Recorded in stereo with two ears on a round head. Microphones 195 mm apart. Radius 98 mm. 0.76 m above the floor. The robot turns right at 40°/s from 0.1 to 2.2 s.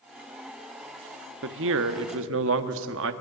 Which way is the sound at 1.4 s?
110° right.